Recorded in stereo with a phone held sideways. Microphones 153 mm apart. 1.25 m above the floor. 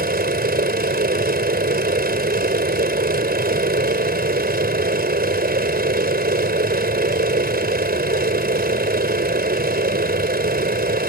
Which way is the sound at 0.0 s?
90° right.